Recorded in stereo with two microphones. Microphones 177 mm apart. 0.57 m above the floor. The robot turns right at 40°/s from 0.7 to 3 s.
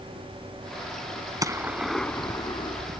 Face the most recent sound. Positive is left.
turn(degrees=45)